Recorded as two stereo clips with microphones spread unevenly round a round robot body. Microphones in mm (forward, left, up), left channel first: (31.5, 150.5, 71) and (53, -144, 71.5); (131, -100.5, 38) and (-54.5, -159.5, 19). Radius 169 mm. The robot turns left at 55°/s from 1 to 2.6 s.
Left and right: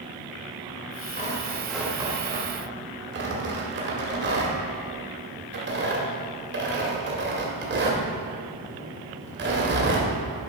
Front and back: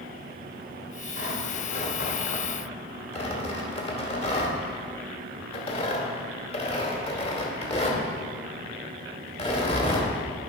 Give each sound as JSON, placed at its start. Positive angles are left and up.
{"t": 1.2, "sound": "tearing paper", "azimuth_deg": 35, "distance_m": 2.0}